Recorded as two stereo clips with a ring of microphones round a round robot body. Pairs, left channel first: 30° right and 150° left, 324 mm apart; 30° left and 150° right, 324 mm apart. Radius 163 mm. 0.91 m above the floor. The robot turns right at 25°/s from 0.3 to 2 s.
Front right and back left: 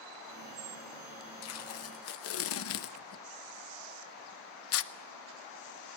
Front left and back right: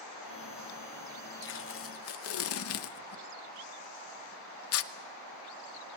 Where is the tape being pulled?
15° right, 0.9 m; by 4.9 s straight ahead, 0.9 m.